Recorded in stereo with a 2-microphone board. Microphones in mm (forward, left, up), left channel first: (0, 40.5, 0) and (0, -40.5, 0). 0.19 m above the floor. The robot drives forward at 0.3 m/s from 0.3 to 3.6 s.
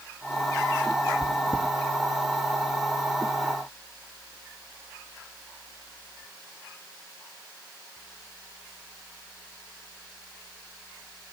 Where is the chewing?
50° left (ahead or behind), 1.0 m; by 1.7 s 60° left (ahead or behind), 0.9 m.